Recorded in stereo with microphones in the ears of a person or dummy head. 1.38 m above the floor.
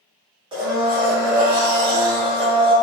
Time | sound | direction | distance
0.5 | a blender | 25° right (ahead or behind) | 1.4 m